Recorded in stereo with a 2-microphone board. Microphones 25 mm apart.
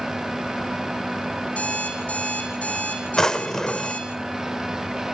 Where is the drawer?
25° left (ahead or behind), 0.7 m.